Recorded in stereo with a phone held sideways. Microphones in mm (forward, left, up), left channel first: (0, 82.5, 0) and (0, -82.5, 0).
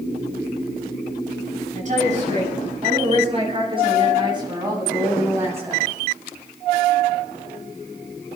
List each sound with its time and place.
1.8 s a woman speaking: 45° right (ahead or behind), 6.5 m; by 5.9 s 10° right (ahead or behind), 5.5 m